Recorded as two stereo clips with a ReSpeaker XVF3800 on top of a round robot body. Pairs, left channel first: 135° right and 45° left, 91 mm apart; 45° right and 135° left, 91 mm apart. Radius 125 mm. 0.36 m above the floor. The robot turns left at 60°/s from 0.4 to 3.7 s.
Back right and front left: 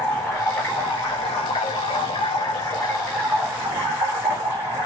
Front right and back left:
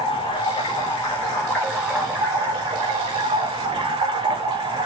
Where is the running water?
50° right, 4 m; by 4.9 s 115° left, 4 m.